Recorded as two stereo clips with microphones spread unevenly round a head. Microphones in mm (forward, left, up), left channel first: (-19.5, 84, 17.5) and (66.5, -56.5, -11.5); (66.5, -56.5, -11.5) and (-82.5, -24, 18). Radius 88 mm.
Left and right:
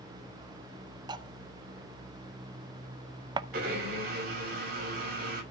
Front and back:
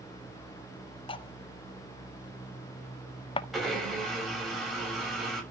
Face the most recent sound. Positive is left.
turn(degrees=-105)